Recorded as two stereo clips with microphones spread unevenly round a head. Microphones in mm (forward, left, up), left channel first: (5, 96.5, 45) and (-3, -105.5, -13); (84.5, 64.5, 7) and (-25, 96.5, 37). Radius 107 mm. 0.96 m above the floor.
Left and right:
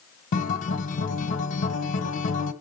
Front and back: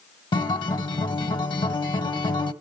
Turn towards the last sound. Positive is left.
turn(degrees=40)